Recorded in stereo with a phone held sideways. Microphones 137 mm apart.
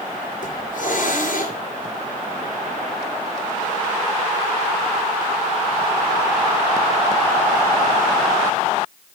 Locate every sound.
0.4 s a hiss: 70° left (ahead or behind), 3.5 m